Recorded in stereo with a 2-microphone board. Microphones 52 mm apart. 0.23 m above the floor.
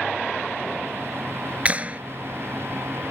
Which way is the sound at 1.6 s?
30° right (ahead or behind).